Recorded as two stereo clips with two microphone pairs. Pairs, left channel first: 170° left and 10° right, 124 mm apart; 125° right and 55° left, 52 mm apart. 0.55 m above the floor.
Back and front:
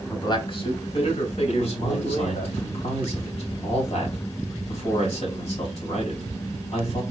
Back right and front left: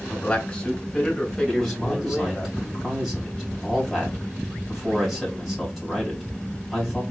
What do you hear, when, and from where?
0.1 s a man speaking: 160° right, 1.2 m; by 2.5 s 145° left, 2.5 m
1.5 s a man speaking: 140° left, 3 m